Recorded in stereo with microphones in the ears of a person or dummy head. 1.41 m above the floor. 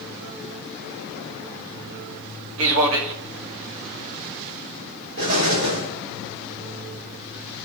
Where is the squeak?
I don't hear a squeak.